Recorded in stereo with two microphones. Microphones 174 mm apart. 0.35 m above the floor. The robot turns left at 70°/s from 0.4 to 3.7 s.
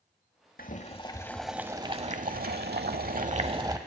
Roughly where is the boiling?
Ahead left.